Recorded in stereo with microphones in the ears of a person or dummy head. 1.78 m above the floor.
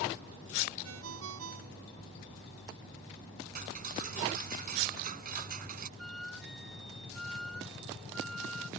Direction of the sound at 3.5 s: 50° right (ahead or behind).